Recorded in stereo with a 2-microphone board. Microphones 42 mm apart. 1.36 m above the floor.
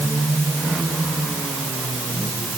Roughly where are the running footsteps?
No running footsteps in this recording.